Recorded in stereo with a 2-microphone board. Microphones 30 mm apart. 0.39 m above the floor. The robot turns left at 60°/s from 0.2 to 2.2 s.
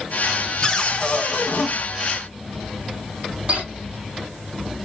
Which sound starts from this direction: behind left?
A cupboard door, at 0.6 s.